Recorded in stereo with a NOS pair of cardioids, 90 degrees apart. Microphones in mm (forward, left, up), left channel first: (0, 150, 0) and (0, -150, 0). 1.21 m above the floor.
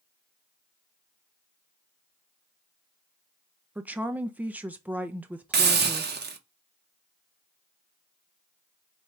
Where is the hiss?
35° right, 0.9 m.